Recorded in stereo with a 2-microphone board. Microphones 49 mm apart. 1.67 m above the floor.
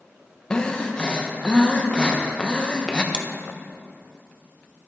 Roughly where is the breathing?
Centre.